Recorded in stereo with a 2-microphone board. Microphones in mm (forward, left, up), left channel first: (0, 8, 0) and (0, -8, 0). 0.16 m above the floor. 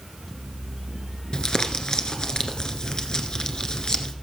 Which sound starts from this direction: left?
Crumpling, at 1.3 s.